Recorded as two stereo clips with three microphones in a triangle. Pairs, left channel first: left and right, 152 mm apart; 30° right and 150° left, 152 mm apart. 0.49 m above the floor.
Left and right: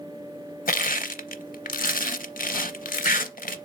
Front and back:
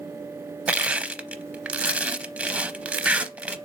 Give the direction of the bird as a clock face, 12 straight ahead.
No bird in this recording.